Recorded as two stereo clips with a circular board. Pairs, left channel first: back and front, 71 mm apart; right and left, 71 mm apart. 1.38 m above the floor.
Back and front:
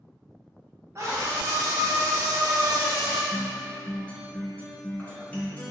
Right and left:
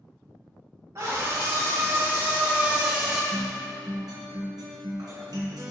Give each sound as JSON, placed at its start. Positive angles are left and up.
{"t": 0.9, "sound": "a scream", "azimuth_deg": 55, "distance_m": 1.4}
{"t": 3.3, "sound": "a guitar", "azimuth_deg": 110, "distance_m": 1.4}